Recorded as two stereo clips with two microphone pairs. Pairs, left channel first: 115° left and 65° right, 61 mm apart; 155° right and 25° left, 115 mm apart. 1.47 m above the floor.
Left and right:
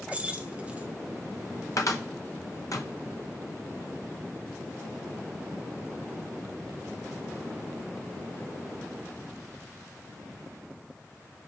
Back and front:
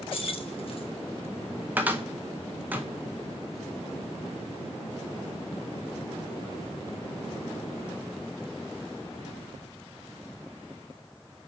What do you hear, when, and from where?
0.1 s keys jangling: 135° right, 0.5 m
1.8 s a cupboard door: 100° left, 0.6 m